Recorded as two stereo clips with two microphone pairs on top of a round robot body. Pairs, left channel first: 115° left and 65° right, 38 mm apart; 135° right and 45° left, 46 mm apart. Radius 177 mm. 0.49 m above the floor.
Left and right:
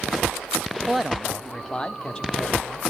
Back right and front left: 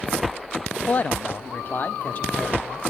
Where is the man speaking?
130° right, 0.7 m; by 2.8 s straight behind, 2 m.